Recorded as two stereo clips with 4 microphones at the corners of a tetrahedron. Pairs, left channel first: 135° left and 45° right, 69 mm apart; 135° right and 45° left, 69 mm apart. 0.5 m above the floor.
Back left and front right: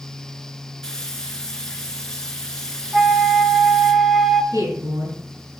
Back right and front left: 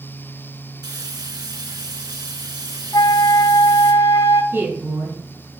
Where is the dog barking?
No dog barking in this recording.